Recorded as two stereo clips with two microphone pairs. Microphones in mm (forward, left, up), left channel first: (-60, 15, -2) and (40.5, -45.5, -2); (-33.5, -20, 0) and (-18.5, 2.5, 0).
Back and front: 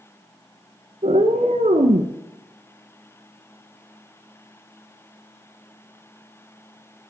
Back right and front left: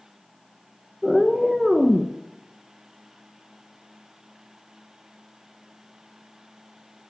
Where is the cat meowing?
35° right, 0.8 m.